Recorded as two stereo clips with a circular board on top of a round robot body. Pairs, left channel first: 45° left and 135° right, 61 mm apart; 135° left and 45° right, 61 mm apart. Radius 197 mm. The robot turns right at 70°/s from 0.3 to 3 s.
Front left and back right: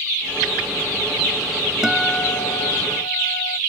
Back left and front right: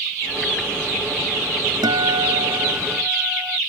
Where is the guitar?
50° right; by 3.6 s 30° left.